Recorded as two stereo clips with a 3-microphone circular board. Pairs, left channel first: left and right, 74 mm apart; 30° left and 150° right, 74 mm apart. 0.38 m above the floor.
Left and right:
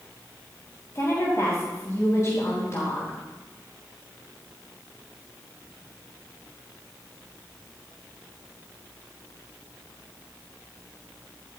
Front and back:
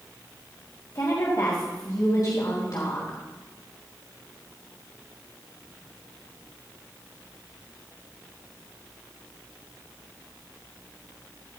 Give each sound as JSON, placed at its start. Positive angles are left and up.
{"t": 0.9, "sound": "a woman speaking", "azimuth_deg": 50, "distance_m": 3.0}